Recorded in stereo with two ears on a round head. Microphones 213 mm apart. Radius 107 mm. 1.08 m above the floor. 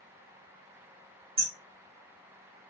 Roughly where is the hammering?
Right.